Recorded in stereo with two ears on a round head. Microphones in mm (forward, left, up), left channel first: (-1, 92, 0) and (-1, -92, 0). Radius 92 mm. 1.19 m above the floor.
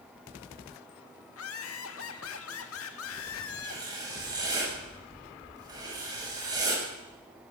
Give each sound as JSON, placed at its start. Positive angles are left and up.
{"t": 1.3, "sound": "laughter", "side_deg": 75, "distance_m": 2.5}
{"t": 3.6, "sound": "writing", "side_deg": -20, "distance_m": 9.0}